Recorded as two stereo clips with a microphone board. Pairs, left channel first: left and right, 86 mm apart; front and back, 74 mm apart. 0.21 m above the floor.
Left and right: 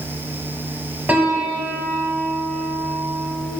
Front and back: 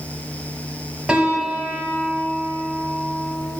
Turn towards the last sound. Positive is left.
turn(degrees=-120)